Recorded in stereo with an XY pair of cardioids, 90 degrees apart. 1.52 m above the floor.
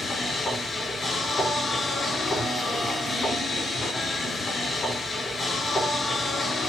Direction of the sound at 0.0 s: 40° left.